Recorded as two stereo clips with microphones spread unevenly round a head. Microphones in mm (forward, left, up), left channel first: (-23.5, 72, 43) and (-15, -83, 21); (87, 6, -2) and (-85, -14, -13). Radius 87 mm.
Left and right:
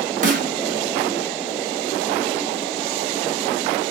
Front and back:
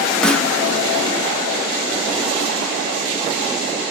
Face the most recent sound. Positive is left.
turn(degrees=-70)